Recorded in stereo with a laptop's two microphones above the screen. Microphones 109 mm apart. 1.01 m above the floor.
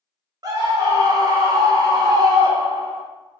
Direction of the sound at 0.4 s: 35° right (ahead or behind).